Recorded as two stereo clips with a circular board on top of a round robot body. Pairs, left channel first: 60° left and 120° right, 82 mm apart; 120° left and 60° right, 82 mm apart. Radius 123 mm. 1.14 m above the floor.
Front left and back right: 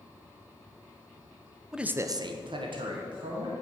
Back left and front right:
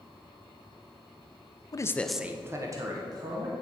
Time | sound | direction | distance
1.7 | a man speaking | 155° left | 0.7 m